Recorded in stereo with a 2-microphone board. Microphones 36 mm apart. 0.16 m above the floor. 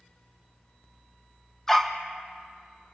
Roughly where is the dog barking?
Centre.